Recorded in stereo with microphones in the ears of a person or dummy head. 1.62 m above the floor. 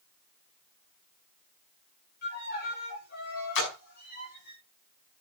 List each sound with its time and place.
2.2 s a violin: 50° left (ahead or behind), 6 m
3.5 s a splash: 70° left (ahead or behind), 5.5 m